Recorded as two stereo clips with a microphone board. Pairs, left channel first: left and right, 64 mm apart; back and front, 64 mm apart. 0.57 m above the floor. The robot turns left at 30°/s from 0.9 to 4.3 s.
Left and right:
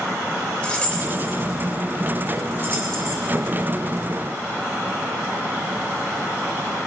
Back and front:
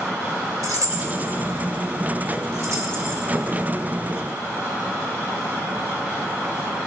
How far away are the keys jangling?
About 1.3 m.